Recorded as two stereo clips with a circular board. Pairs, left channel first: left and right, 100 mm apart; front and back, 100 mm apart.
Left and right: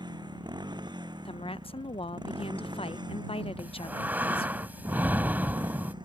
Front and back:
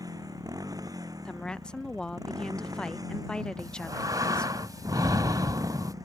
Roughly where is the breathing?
Behind right.